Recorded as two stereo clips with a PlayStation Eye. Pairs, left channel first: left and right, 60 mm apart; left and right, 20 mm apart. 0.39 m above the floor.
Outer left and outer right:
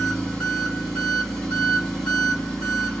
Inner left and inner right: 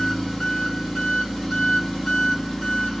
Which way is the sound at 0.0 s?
5° left (ahead or behind).